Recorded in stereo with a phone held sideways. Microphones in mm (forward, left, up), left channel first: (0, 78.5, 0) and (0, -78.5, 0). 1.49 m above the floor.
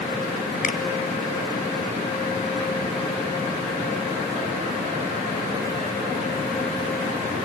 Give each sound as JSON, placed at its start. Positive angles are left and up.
{"t": 0.6, "sound": "a finger snap", "side_deg": 55, "distance_m": 1.0}